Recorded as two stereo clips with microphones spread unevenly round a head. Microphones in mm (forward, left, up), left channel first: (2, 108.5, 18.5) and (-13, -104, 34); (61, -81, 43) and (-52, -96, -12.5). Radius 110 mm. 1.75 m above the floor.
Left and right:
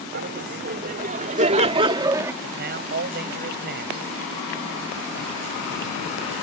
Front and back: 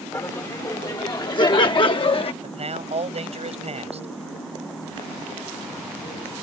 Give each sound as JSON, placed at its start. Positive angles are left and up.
{"t": 0.1, "sound": "laughter", "azimuth_deg": -50}
{"t": 2.4, "sound": "a man speaking", "azimuth_deg": -140}